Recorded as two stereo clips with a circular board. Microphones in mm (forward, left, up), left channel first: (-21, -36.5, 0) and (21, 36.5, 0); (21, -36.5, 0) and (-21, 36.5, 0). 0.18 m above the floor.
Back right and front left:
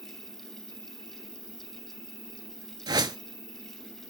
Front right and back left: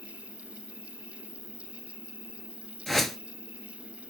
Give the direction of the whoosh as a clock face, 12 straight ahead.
11 o'clock.